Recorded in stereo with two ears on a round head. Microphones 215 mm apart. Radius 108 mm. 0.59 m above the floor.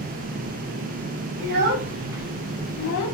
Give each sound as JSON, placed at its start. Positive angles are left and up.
{"t": 1.4, "sound": "a child speaking", "side_deg": -50, "distance_m": 1.3}